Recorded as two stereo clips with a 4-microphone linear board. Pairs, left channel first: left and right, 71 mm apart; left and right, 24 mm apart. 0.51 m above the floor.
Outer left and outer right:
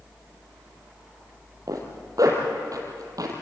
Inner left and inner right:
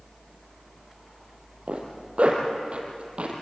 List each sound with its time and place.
1.7 s a zipper: 55° right (ahead or behind), 5 m